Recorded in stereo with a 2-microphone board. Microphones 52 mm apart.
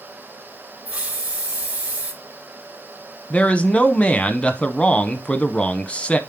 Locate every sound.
0.8 s a hiss: 30° right (ahead or behind), 3 m
3.3 s a man speaking: 20° left (ahead or behind), 1.0 m